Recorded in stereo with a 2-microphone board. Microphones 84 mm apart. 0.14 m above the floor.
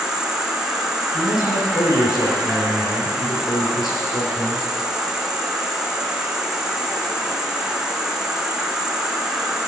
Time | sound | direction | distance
0.0 | an insect | 5° right (ahead or behind) | 1.0 m
1.1 | a man speaking | 55° left (ahead or behind) | 3.5 m